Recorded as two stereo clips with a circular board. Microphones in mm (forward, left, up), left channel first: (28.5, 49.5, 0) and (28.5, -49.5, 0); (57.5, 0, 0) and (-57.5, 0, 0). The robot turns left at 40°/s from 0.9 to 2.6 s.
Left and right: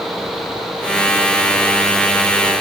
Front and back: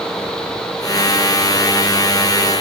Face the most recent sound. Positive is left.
No sound to turn to.